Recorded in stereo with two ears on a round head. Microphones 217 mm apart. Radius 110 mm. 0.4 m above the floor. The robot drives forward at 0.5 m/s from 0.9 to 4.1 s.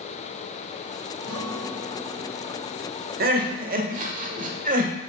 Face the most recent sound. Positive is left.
turn(degrees=-35)  # may be behind; listen again after turning